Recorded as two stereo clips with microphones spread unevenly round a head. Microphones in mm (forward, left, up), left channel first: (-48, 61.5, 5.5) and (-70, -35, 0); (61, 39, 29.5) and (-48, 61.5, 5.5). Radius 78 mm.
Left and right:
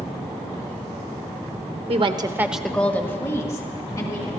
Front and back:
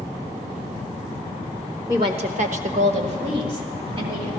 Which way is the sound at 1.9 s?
125° right.